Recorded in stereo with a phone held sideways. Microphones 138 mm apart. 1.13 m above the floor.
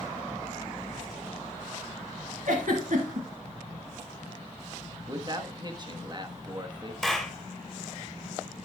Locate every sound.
2.5 s a giggle: 70° right (ahead or behind), 2.5 m
5.1 s a man speaking: 30° right (ahead or behind), 1.3 m
7.0 s a clap: centre (ahead or behind), 2 m